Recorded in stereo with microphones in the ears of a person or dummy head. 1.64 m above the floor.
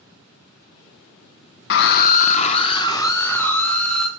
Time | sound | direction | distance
1.7 | a scream | 60° left (ahead or behind) | 0.9 m